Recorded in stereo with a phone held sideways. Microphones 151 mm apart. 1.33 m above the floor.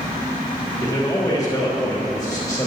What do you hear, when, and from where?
0.8 s a man speaking: 25° left (ahead or behind), 3 m